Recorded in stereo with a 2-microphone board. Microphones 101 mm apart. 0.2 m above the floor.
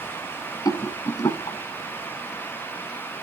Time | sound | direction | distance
0.7 | a rattle | 35° left (ahead or behind) | 0.7 m